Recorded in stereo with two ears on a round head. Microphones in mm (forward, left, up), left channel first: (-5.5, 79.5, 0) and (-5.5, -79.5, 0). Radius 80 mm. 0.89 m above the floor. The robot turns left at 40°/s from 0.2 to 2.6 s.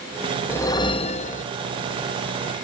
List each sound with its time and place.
0.5 s a whoosh: 165° left, 0.6 m; by 1.4 s 130° left, 0.6 m